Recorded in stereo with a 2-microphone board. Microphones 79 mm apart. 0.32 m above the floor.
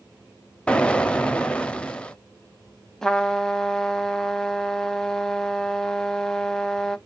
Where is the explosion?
15° left (ahead or behind), 0.6 m.